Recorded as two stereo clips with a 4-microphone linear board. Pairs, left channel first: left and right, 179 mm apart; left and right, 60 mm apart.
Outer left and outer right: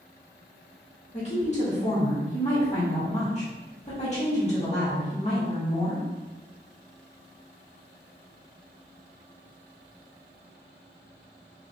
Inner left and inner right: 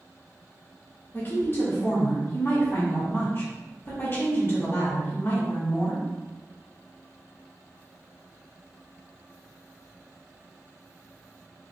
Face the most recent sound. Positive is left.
turn(degrees=35)  # may be behind; listen again after turning